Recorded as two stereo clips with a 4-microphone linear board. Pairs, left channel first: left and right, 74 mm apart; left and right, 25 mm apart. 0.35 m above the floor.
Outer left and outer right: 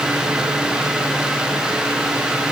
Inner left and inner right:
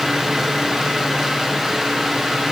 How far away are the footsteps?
I don't hear footsteps.